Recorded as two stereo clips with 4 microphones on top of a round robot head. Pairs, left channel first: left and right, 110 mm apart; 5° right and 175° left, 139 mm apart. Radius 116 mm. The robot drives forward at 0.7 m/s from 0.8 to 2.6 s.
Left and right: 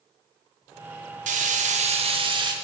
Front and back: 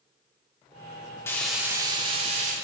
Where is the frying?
80° right, 0.6 m; by 2.5 s 140° right, 1.0 m.